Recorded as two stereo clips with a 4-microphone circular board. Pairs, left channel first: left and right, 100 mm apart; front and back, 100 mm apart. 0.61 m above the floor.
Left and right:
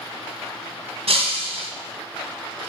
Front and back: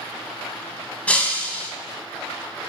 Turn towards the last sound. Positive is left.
turn(degrees=-75)